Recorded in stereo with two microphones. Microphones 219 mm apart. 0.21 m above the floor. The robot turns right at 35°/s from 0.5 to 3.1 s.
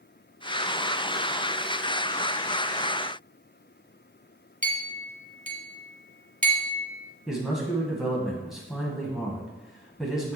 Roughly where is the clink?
Right.